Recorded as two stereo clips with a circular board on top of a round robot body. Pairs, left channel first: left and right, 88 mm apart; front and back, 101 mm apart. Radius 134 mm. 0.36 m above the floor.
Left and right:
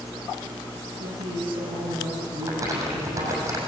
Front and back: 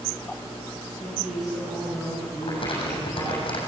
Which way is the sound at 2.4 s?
35° right.